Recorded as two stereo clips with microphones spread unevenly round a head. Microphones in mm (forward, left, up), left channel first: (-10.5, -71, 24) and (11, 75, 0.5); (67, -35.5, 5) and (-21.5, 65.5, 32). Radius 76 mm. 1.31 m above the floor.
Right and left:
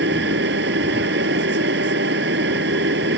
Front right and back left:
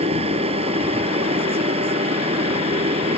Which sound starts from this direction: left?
A machine running, at 0.0 s.